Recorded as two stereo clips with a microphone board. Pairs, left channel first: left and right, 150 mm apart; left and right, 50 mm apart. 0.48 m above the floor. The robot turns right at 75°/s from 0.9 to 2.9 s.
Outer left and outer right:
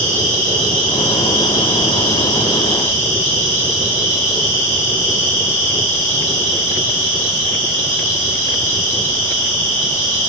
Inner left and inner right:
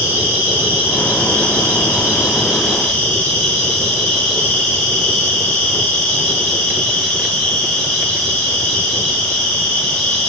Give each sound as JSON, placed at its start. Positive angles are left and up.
{"t": 0.0, "sound": "an insect", "azimuth_deg": -130, "distance_m": 2.0}